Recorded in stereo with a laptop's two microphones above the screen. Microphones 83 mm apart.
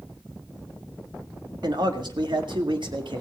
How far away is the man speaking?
About 1.8 m.